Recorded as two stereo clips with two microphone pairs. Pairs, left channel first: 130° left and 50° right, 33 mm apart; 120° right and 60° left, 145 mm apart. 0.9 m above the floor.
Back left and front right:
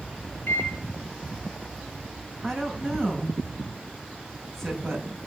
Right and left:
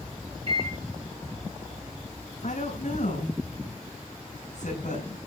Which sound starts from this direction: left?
A microwave, at 0.5 s.